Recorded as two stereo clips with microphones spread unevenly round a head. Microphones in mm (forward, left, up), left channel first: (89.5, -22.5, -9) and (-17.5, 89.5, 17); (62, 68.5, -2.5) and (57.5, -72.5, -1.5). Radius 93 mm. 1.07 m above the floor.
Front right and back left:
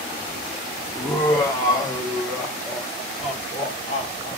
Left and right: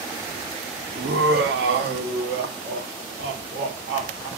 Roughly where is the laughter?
Behind right.